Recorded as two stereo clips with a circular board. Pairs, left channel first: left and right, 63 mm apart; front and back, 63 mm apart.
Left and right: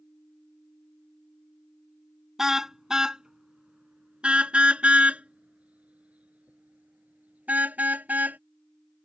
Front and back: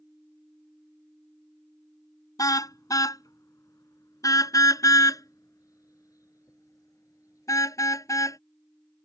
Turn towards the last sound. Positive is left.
turn(degrees=-25)